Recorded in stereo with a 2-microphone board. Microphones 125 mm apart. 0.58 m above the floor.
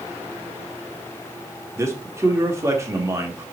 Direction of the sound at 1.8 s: 25° right (ahead or behind).